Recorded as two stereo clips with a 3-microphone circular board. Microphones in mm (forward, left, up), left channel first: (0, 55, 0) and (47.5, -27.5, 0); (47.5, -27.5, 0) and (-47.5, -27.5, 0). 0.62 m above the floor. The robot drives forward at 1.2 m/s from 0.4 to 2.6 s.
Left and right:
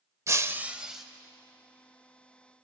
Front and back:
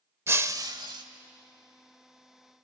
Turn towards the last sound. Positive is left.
turn(degrees=-165)